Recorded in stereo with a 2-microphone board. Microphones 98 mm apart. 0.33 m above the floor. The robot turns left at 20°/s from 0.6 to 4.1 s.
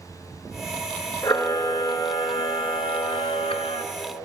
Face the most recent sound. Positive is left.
turn(degrees=80)